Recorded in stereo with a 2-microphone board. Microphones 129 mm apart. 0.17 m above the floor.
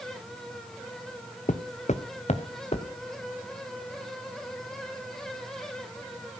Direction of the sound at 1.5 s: 70° left (ahead or behind).